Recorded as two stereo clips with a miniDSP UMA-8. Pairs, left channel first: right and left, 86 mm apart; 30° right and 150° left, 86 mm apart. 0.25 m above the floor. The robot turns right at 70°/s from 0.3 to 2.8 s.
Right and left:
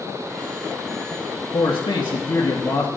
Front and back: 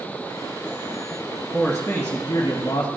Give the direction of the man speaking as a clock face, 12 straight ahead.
4 o'clock.